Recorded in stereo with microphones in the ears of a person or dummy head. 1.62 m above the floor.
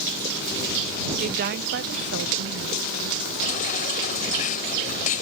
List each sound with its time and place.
1.2 s a woman speaking: 40° right (ahead or behind); by 3.2 s 85° right
3.4 s a baby crying: 45° left (ahead or behind)